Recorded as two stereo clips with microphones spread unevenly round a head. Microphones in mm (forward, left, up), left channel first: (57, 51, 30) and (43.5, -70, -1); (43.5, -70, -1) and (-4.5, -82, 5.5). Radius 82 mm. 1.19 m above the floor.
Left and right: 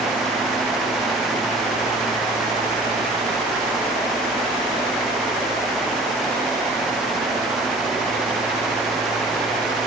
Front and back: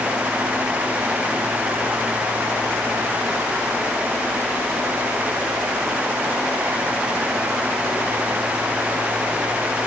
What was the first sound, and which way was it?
Only background noise.